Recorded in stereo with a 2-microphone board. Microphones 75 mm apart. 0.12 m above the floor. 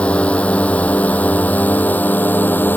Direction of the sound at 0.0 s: 15° left (ahead or behind).